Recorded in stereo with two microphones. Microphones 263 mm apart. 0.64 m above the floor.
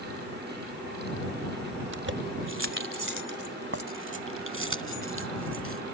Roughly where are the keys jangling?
Right.